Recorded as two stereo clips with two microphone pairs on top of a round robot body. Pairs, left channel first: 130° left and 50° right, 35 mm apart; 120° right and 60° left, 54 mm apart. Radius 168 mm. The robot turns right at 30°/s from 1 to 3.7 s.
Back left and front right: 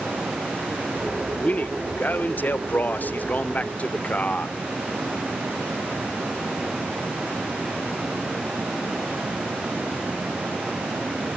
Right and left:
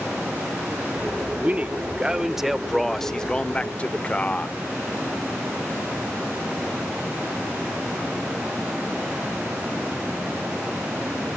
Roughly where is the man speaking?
Left.